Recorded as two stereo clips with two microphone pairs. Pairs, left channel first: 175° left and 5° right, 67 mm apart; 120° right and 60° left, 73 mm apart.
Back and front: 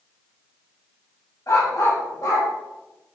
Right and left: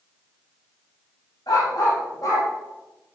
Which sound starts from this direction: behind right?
A dog barking, at 1.5 s.